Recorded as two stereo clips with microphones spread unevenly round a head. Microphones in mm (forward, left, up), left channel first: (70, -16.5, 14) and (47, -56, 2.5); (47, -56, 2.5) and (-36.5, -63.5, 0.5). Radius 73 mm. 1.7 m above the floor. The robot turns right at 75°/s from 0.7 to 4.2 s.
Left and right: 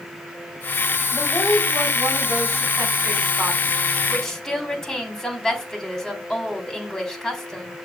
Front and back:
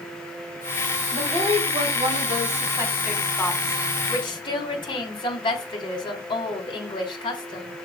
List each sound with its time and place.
1.1 s a woman speaking: 110° left, 3.5 m; by 7.8 s 20° right, 3.5 m